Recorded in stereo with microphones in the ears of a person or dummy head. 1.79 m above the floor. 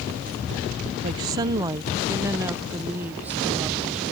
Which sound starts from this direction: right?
A woman speaking, at 1.0 s.